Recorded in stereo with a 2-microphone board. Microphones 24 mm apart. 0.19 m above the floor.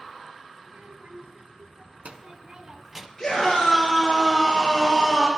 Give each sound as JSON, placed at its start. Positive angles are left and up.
{"t": 0.6, "sound": "a child speaking", "side_deg": -70, "distance_m": 1.8}
{"t": 3.2, "sound": "a scream", "side_deg": 15, "distance_m": 3.5}